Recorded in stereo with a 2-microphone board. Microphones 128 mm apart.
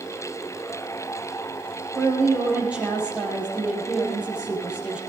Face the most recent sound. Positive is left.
turn(degrees=-10)  # may be behind; listen again after turning